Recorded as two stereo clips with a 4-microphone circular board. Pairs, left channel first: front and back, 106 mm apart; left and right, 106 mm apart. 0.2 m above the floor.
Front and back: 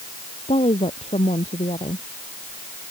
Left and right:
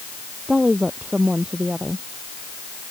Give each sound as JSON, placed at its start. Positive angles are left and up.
{"t": 0.5, "sound": "a woman speaking", "azimuth_deg": -10}